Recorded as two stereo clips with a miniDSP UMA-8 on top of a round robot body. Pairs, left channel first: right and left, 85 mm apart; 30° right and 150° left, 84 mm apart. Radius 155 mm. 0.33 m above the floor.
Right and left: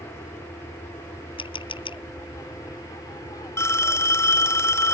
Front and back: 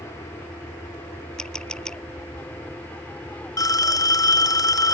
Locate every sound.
0.0 s an aircraft: 60° right; by 4.9 s 105° right
1.4 s a camera shutter: 115° right
3.6 s a phone ringing: 45° right